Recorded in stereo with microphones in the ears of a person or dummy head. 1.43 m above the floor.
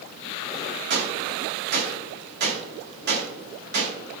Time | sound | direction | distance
0.9 | a gunshot | 55° right (ahead or behind) | 1.8 m